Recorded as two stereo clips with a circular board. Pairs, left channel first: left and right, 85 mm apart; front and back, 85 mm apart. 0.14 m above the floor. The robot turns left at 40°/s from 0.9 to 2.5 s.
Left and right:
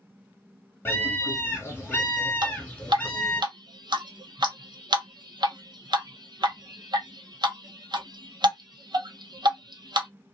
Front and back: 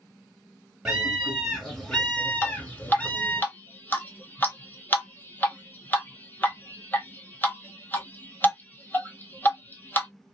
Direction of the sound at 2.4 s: 60° right.